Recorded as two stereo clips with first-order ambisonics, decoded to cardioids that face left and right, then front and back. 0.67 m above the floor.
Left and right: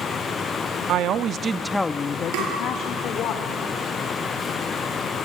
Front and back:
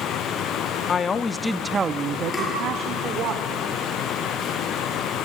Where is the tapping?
75° right, 7.5 m.